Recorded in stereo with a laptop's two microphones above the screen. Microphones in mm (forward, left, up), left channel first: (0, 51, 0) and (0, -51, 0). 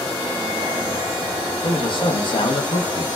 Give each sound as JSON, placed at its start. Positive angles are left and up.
{"t": 1.6, "sound": "a man speaking", "side_deg": 55, "distance_m": 0.6}